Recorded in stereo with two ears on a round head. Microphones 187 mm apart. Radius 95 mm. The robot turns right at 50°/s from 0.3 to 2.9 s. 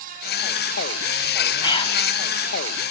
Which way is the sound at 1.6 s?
20° left (ahead or behind).